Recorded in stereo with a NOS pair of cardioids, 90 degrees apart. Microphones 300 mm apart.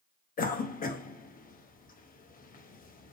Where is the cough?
30° left, 0.6 m.